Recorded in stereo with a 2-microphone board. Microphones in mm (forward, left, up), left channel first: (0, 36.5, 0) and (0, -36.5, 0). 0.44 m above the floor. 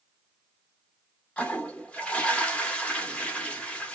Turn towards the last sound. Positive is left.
turn(degrees=15)  # may be behind; listen again after turning